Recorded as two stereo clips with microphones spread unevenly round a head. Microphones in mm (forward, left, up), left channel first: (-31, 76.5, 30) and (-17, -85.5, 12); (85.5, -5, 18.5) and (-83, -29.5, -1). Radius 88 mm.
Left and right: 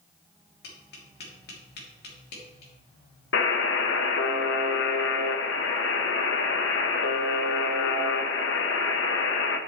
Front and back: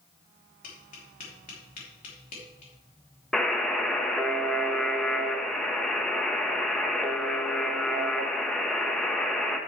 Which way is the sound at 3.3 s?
95° left.